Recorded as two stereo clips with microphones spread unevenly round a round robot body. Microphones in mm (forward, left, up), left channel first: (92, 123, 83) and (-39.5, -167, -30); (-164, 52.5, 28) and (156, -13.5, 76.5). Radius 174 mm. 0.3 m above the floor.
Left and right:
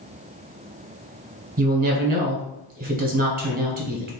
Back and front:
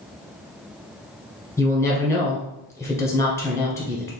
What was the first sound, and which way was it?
A woman speaking, 125° right.